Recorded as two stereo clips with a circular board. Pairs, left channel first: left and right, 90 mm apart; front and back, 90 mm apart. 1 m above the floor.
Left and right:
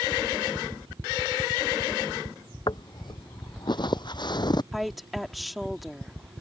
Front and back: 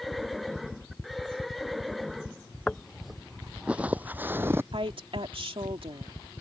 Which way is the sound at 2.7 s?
80° left.